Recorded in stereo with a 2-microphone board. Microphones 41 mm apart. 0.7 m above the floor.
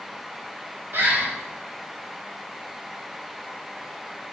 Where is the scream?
I don't hear a scream.